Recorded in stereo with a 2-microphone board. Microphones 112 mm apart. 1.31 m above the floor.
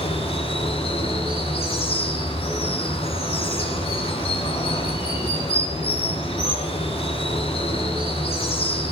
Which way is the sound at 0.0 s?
50° left (ahead or behind).